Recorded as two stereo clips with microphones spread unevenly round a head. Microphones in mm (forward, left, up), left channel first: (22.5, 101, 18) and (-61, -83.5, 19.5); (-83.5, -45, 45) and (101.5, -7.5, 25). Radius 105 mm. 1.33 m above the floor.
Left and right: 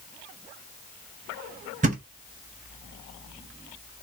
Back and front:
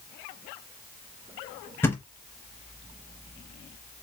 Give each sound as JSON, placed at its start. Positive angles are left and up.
{"t": 1.8, "sound": "a thud", "azimuth_deg": -110, "distance_m": 0.8}